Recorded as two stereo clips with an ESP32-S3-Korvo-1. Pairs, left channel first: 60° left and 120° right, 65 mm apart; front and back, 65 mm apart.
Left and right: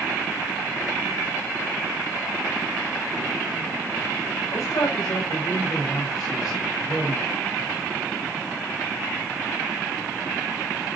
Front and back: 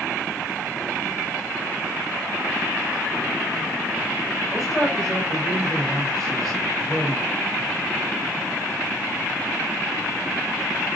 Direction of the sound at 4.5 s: 90° left.